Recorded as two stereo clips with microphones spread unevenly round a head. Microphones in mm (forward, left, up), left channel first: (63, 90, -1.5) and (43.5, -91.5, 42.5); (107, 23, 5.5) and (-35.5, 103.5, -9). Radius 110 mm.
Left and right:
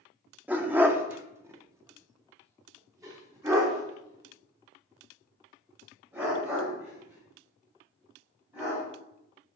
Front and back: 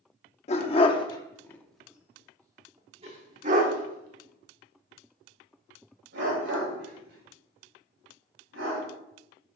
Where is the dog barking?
35° right, 1.1 m; by 8.8 s 175° right, 4 m.